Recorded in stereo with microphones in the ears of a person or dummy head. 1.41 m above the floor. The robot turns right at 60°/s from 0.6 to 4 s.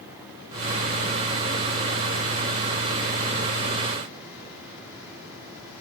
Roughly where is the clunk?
No clunk in this recording.